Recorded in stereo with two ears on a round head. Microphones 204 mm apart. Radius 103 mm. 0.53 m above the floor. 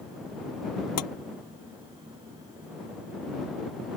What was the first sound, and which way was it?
Tapping, 75° left (ahead or behind).